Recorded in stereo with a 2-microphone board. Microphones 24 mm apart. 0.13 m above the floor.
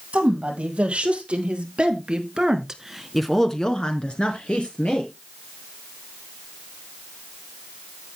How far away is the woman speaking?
About 4 m.